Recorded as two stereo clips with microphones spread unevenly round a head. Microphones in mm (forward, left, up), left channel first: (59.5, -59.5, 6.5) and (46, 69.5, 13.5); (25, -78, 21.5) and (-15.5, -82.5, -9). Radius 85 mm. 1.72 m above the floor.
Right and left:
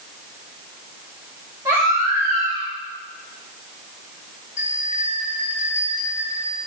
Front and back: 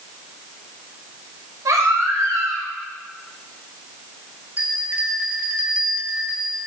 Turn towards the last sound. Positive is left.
turn(degrees=-130)